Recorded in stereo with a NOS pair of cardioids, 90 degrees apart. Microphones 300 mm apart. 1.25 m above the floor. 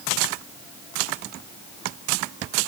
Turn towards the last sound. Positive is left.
No sound to turn to.